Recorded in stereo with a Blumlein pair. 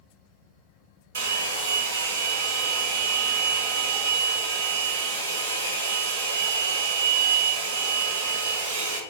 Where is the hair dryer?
60° right, 0.7 m.